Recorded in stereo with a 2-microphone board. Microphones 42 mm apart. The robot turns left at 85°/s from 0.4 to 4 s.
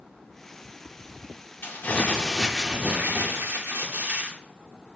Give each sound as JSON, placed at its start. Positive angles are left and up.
{"t": 1.6, "sound": "crumpling", "azimuth_deg": 70, "distance_m": 1.3}